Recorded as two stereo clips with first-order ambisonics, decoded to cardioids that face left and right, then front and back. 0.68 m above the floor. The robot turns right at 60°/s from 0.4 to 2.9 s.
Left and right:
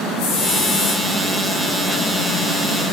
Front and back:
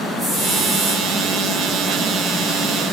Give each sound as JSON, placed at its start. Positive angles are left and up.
{"t": 0.2, "sound": "a hiss", "azimuth_deg": 105, "distance_m": 4.5}